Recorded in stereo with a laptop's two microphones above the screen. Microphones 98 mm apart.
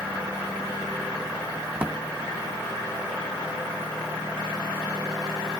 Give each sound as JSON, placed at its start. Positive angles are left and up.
{"t": 1.8, "sound": "a drawer", "side_deg": -20, "distance_m": 0.5}